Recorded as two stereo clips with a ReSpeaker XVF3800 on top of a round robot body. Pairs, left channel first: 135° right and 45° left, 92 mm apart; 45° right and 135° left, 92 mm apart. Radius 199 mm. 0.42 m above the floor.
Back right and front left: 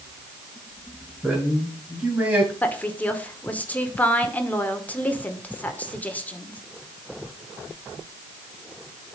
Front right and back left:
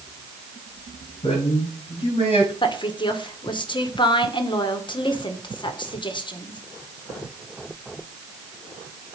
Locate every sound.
1.2 s a man speaking: 30° right, 8.5 m; by 2.5 s 25° right, 9 m
2.6 s a woman speaking: 65° right, 2.5 m